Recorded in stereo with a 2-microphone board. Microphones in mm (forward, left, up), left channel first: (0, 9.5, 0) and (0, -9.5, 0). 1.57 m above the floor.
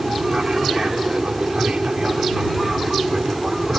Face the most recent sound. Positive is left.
turn(degrees=-45)  # may be behind; listen again after turning